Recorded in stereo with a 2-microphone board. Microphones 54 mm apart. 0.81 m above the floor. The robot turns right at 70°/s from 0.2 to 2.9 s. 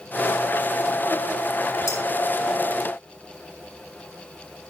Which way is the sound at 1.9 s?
85° left.